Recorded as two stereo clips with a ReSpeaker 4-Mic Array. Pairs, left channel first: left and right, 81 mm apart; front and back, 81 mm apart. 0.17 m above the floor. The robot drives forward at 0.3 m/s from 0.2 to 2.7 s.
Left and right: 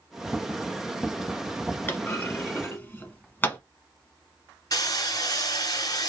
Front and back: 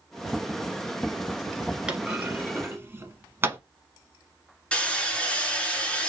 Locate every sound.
1.9 s a clunk: 115° left, 0.8 m; by 3.6 s 140° left, 0.9 m
4.7 s hammering: 75° left, 1.6 m